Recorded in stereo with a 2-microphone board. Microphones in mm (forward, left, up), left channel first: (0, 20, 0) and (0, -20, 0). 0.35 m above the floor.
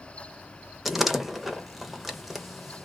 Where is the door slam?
5° right (ahead or behind), 0.7 m.